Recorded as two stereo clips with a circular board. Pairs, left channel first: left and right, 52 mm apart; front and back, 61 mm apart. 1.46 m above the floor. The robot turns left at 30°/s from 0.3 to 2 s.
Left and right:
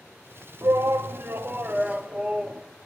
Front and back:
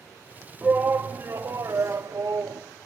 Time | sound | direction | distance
0.6 | a shout | 110° right | 0.5 m